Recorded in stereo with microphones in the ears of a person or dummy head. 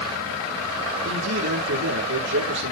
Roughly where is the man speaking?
Right.